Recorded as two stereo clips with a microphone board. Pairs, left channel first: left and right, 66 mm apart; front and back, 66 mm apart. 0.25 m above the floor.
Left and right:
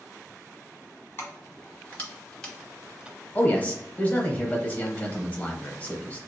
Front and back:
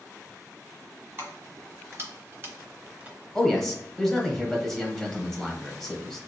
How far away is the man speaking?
About 1.0 m.